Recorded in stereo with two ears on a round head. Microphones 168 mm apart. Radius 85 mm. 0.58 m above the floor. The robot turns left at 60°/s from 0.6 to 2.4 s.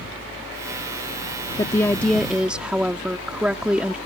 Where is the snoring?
I don't hear snoring.